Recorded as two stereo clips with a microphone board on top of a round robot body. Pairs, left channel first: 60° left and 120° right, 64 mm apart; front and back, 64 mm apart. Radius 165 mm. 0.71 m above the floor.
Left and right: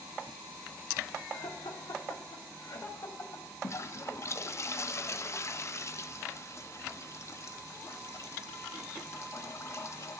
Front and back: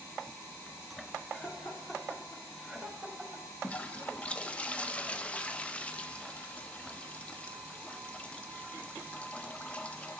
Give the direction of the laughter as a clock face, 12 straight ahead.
10 o'clock.